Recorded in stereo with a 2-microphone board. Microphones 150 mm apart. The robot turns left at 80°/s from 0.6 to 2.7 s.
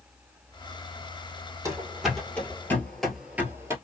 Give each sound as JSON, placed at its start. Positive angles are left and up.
{"t": 1.6, "sound": "running footsteps", "side_deg": -20, "distance_m": 1.7}